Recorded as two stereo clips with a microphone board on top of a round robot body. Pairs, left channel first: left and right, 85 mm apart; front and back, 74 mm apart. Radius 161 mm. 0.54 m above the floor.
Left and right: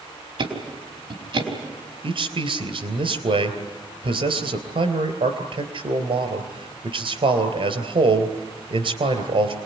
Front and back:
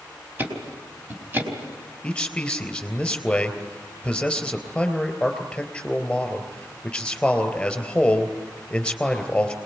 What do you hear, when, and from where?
0.4 s ticking: 115° right, 4 m
2.0 s a man speaking: 80° right, 3.5 m